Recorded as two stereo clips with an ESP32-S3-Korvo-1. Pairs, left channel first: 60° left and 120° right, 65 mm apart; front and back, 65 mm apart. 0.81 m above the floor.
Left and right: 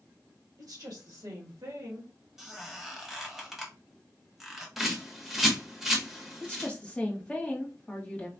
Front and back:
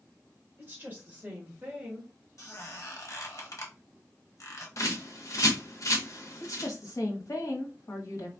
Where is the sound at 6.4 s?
10° right, 1.5 m.